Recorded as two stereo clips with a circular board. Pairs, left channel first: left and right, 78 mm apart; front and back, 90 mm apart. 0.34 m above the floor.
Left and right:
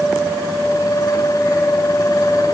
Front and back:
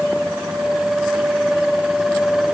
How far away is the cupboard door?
No cupboard door in this recording.